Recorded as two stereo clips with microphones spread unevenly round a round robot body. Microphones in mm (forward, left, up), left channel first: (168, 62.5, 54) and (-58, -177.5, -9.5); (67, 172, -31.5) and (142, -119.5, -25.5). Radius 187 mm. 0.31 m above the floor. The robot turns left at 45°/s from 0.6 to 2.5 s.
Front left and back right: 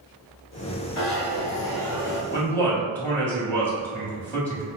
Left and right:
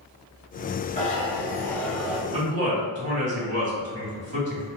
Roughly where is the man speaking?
Ahead right.